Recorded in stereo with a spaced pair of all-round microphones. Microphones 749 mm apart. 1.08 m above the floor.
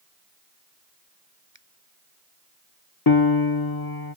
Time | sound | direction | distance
1.5 | a finger snap | 35° right (ahead or behind) | ?
3.1 | a piano | 30° left (ahead or behind) | ?